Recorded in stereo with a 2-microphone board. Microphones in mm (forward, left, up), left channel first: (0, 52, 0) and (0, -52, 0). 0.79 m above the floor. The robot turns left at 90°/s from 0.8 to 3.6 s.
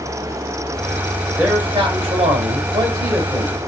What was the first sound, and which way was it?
A man speaking, 15° right.